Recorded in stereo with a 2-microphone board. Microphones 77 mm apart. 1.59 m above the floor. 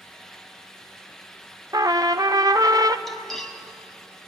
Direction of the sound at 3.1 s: 5° left (ahead or behind).